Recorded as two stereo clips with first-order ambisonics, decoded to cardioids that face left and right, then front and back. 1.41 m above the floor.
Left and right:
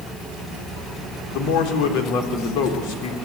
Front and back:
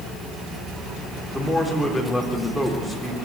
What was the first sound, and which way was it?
A man speaking, 90° left.